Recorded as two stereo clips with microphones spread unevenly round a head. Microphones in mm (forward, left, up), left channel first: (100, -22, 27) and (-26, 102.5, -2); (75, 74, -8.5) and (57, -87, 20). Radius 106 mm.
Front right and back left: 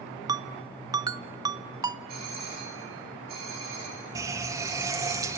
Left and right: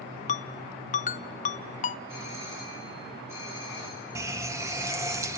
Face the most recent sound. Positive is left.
turn(degrees=-145)